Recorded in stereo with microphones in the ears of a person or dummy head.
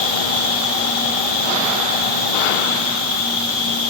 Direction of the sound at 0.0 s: 85° right.